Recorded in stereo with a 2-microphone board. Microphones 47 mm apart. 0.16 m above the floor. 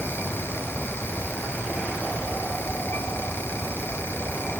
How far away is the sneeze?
I don't hear a sneeze.